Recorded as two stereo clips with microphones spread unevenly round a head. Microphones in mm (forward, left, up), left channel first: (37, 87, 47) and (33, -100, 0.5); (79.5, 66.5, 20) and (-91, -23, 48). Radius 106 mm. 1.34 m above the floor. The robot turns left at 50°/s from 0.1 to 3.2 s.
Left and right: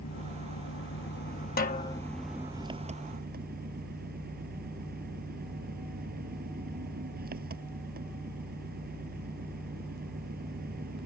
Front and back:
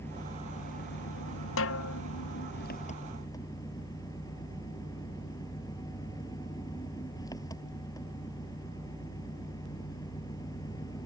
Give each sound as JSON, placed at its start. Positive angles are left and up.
{"t": 0.0, "sound": "an engine running", "azimuth_deg": 105}
{"t": 1.6, "sound": "a snare drum", "azimuth_deg": 45}